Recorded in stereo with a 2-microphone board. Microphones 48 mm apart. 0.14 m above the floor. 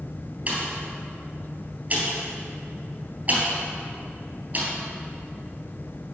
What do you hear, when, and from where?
0.5 s a pop: 35° right (ahead or behind), 3 m